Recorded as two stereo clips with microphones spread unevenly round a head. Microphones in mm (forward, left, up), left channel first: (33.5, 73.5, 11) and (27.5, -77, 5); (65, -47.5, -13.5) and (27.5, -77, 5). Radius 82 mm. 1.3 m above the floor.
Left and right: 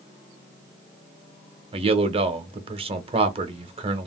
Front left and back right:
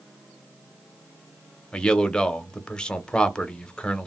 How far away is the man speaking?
About 0.8 m.